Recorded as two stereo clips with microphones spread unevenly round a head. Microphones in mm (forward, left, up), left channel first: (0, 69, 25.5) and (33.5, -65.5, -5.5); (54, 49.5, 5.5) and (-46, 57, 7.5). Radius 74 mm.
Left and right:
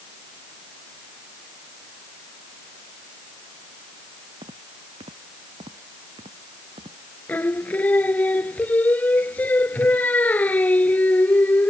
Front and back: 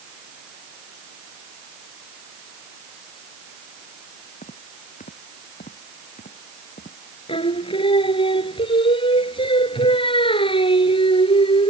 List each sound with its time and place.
4.4 s footsteps: 20° right; by 7.0 s 25° right
7.3 s singing: 25° left